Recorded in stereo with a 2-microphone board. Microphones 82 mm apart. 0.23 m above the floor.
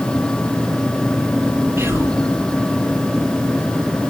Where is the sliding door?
No sliding door in this recording.